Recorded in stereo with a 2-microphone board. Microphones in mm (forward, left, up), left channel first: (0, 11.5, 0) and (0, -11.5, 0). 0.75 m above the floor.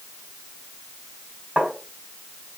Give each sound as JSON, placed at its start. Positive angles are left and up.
{"t": 1.6, "sound": "tapping", "side_deg": -75, "distance_m": 5.0}